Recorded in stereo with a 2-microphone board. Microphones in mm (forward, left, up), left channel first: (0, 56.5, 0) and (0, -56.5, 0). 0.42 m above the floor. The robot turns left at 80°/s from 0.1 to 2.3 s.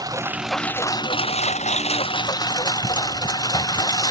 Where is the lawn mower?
150° right; by 4.1 s 35° left.